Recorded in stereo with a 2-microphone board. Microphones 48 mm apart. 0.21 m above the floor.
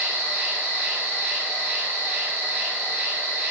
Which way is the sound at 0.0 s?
65° right (ahead or behind).